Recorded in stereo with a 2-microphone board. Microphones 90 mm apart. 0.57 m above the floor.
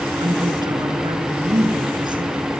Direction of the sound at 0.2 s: 55° right (ahead or behind).